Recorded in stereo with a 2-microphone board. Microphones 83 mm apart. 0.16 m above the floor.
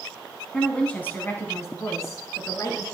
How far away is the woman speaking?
About 1.1 m.